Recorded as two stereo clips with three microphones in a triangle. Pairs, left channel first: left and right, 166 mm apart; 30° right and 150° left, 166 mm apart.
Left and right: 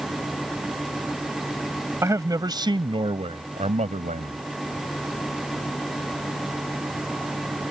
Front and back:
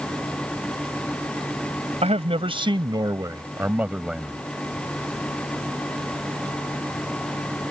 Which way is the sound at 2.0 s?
160° right.